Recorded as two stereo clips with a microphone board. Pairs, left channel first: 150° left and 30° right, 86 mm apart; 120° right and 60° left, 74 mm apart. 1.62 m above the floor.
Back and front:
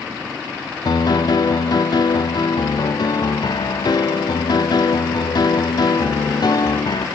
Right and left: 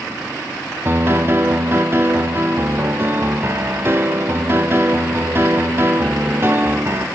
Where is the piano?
115° left, 0.5 m.